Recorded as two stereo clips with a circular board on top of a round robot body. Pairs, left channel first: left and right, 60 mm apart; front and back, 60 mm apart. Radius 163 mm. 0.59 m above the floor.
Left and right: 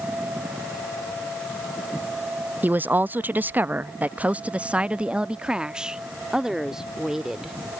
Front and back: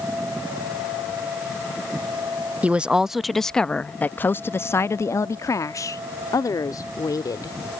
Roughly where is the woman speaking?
Behind right.